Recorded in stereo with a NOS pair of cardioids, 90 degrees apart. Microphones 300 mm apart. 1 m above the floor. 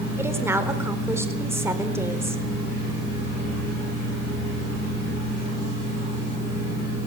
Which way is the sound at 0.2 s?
10° right.